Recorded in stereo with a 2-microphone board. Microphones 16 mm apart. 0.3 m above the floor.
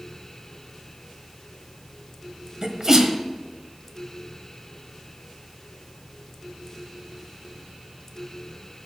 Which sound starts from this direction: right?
A sneeze, at 2.6 s.